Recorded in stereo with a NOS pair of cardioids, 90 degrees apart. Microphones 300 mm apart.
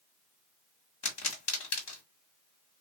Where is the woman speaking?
No woman speaking in this recording.